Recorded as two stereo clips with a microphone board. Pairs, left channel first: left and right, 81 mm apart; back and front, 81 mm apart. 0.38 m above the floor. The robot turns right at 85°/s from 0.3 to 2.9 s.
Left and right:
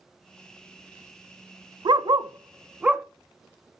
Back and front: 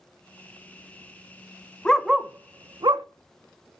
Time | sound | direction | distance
1.9 | a dog barking | 105° right | 0.6 m